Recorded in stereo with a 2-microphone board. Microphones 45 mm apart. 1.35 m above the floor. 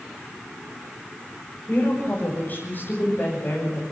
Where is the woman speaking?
45° left (ahead or behind), 6 m; by 3.8 s 55° left (ahead or behind), 6.5 m.